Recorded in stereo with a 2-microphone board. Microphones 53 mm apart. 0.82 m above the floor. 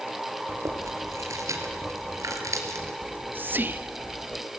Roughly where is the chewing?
Right.